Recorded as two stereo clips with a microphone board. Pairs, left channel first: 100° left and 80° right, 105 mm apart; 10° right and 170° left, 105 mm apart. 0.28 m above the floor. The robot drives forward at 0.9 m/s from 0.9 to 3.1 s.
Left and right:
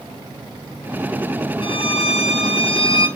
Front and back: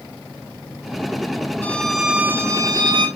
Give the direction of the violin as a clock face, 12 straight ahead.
10 o'clock.